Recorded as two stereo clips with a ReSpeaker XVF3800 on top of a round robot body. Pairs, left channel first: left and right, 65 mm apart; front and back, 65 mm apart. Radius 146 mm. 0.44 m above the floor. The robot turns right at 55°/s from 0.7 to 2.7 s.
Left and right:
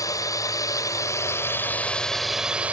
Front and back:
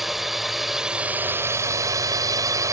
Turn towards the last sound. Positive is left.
turn(degrees=-155)